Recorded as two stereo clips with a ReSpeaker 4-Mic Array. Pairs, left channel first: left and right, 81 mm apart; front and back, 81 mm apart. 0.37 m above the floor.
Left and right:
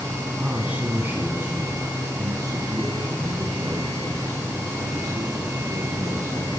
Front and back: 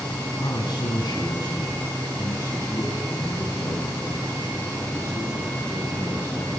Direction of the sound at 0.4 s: 15° right.